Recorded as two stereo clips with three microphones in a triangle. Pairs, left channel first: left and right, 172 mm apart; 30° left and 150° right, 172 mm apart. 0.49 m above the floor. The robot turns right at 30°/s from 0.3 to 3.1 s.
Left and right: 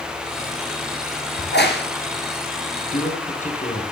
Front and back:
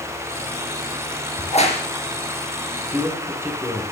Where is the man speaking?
130° left, 4.5 m; by 3.8 s 135° left, 4.5 m.